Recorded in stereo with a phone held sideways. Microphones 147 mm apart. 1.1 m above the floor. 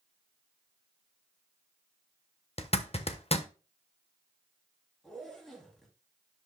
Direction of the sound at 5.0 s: 5° left (ahead or behind).